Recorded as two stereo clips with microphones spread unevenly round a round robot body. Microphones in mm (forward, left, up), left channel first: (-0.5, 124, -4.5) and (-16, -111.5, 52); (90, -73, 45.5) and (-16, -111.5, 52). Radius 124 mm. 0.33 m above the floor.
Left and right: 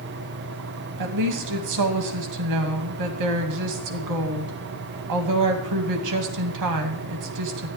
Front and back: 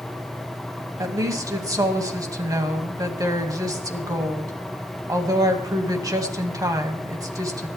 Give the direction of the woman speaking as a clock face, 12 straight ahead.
3 o'clock.